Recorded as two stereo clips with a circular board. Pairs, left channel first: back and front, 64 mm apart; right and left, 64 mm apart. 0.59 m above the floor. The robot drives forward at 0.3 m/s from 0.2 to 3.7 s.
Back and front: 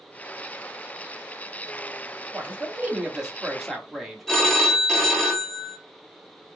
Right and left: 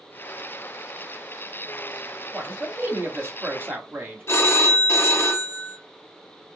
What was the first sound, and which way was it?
A man speaking, 50° left.